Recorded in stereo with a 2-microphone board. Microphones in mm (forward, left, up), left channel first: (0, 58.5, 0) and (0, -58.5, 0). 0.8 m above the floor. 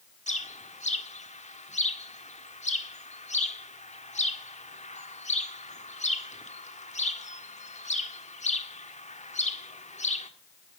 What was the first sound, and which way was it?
A bird, 80° left.